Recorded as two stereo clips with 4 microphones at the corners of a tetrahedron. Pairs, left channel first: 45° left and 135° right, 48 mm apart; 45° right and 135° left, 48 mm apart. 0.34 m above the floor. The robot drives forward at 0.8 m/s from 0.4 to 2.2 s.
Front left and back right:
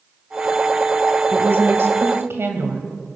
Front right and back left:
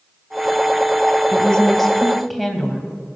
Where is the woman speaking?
110° right, 1.4 m; by 2.9 s 140° right, 1.7 m.